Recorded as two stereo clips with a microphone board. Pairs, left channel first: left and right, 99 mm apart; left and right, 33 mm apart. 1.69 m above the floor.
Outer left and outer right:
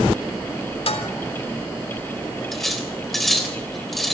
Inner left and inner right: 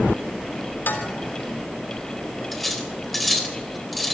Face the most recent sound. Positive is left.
turn(degrees=0)  # may be behind; listen again after turning